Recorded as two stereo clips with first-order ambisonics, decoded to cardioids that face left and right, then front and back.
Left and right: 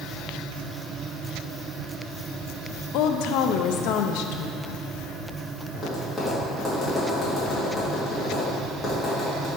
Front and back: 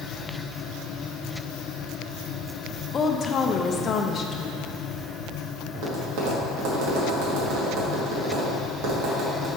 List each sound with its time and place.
2.9 s a woman speaking: 65° left, 0.6 m
5.7 s tapping: straight behind, 1.8 m